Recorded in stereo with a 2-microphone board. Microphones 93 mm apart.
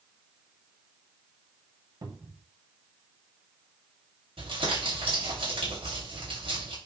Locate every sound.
2.0 s a cupboard door: 50° right (ahead or behind), 2.0 m
4.4 s crumpling: 80° right, 5.5 m